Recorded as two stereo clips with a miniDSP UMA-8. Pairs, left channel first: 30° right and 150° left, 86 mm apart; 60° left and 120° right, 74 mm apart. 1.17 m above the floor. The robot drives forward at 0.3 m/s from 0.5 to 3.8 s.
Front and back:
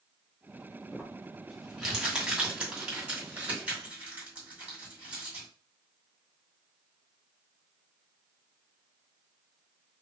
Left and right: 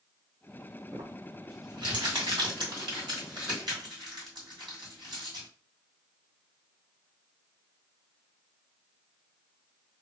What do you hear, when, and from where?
0.9 s crumpling: 120° right, 1.8 m; by 5.5 s 140° right, 2.5 m